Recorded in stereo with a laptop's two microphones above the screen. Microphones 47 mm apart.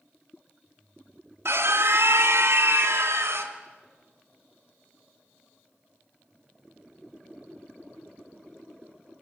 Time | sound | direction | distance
1.4 | a scream | 65° right (ahead or behind) | 2 m